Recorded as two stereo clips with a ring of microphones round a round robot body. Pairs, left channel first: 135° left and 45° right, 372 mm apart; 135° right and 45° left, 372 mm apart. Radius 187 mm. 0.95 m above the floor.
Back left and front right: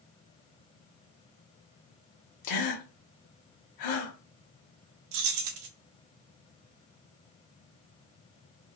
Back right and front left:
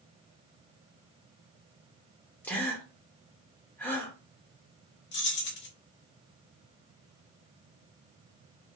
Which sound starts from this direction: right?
Keys jangling, at 5.1 s.